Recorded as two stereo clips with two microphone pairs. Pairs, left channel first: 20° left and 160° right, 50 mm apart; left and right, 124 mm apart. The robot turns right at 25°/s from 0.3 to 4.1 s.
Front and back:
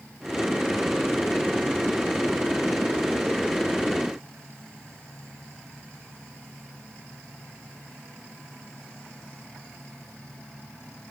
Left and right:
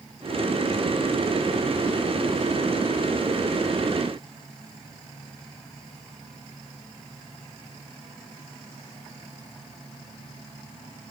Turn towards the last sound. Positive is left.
No sound to turn to.